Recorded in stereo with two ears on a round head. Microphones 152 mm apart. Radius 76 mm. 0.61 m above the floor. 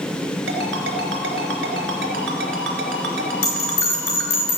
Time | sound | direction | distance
0.5 | a ringtone | 80° right | 3.5 m
3.4 | a bell | 70° left (ahead or behind) | 7.5 m